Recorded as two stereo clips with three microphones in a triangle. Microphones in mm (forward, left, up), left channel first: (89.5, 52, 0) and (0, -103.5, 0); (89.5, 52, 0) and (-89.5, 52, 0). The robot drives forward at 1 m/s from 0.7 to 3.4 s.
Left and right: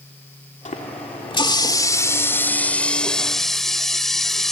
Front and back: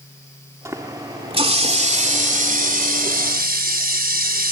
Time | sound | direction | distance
0.7 | a running tap | 105° left | ?